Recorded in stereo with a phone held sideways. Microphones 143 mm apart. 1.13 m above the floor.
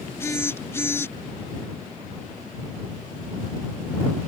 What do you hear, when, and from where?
0.2 s a phone buzzing: 15° left (ahead or behind)